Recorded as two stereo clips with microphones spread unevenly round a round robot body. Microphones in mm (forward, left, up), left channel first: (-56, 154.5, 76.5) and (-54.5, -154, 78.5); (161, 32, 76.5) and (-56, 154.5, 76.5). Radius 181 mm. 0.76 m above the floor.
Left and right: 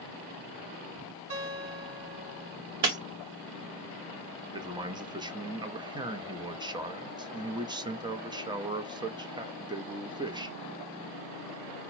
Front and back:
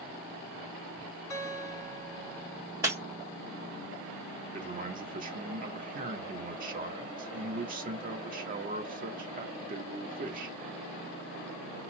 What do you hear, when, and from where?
1.3 s a guitar: 90° right, 3 m
2.8 s breaking glass: 125° right, 1.8 m
4.5 s a man speaking: 165° right, 0.9 m